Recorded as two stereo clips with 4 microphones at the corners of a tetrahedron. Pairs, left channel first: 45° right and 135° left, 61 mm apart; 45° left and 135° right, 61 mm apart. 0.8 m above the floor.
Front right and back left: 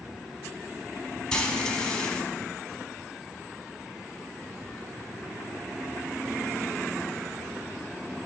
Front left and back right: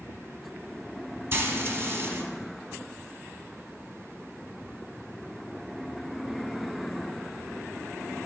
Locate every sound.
1.3 s frying: 115° right, 0.8 m